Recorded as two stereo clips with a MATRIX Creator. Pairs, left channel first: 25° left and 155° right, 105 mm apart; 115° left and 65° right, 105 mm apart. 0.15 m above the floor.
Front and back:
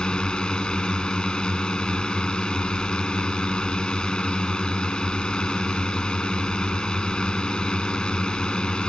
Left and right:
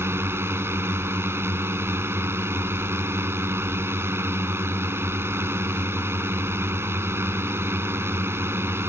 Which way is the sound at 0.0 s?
50° right.